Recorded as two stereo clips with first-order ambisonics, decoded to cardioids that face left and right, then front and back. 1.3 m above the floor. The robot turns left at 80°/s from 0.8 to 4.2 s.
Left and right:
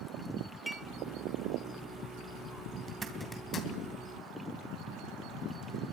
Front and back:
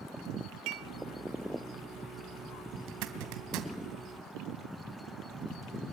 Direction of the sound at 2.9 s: 150° right.